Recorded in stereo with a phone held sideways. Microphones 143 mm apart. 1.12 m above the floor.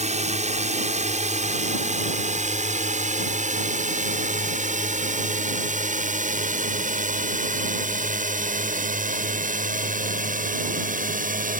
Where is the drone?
50° right (ahead or behind); by 11.6 s 70° right (ahead or behind).